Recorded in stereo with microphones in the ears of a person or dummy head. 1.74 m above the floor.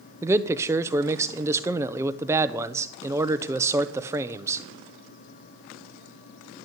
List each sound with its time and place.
0.2 s a man speaking: 15° right (ahead or behind), 0.8 m